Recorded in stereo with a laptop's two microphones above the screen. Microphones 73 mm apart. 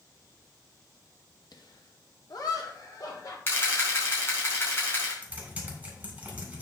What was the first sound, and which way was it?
Laughter, 75° left (ahead or behind).